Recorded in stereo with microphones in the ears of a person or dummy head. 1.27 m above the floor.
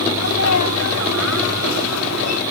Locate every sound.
0.1 s a sneeze: 90° left